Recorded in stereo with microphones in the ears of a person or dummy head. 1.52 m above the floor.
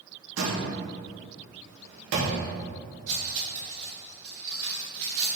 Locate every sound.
0.4 s a door slam: 75° right (ahead or behind), 1.5 m
3.1 s cutlery clinking: 45° right (ahead or behind), 2.5 m